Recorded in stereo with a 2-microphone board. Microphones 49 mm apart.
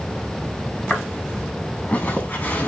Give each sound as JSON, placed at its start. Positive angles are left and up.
{"t": 0.9, "sound": "footsteps", "side_deg": 25, "distance_m": 3.5}